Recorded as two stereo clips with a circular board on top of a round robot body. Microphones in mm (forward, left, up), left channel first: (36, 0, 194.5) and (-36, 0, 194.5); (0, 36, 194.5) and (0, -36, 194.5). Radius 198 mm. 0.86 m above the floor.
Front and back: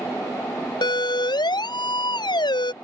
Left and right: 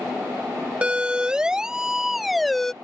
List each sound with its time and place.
0.8 s a siren: 15° right; by 2.7 s 5° left